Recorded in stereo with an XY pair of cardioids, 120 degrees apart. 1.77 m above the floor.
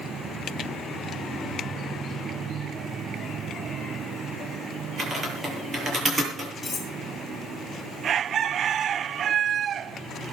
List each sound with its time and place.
5.0 s typing on a keyboard: 25° right, 9.5 m
6.6 s cutlery clinking: 20° left, 10 m